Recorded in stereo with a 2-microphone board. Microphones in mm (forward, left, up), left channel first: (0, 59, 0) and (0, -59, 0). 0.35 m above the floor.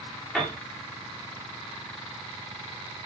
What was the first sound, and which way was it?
A piano, 5° left (ahead or behind).